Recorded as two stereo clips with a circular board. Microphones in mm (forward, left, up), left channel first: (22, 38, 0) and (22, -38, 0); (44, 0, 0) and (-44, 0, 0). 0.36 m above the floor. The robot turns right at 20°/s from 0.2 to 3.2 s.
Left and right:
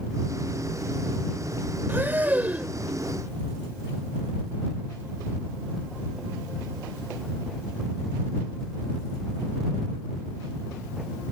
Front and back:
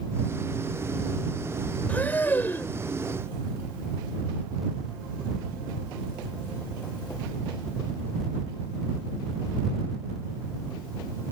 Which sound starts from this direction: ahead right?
Breathing, at 1.9 s.